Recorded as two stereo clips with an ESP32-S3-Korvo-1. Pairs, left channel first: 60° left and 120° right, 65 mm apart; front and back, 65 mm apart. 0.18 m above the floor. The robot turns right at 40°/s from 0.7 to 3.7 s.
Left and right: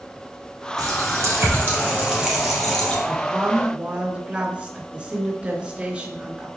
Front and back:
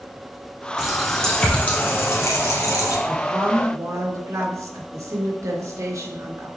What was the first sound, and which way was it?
A running tap, 100° right.